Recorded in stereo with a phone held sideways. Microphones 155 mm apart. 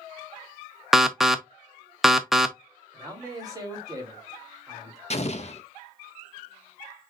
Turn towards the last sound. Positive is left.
turn(degrees=45)  # may be behind; listen again after turning